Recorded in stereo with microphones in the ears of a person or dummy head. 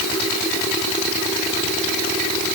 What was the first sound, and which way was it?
Only background noise.